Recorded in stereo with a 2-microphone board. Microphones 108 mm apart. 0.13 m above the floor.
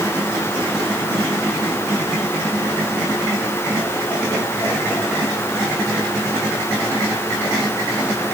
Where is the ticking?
No ticking in this recording.